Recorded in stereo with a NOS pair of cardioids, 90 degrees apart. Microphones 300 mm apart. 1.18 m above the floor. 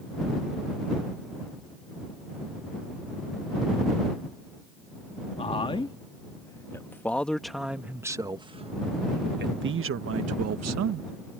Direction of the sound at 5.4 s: 20° left.